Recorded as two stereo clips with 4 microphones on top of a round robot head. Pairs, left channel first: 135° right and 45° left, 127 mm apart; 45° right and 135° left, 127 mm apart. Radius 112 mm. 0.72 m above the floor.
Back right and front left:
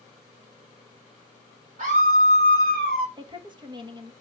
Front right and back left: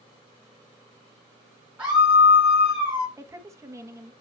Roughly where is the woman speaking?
Left.